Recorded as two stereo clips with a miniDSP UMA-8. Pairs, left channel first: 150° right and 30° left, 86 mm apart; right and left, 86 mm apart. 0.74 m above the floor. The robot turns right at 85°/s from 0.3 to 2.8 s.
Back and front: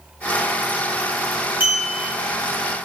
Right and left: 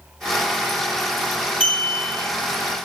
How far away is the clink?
About 1.5 m.